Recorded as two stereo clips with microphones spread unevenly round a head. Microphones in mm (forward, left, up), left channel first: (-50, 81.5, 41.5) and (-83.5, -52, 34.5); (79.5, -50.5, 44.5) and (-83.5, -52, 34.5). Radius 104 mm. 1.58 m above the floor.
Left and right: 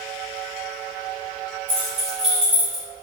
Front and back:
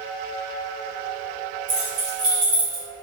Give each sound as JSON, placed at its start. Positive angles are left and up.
{"t": 1.7, "sound": "keys jangling", "azimuth_deg": -135, "distance_m": 1.9}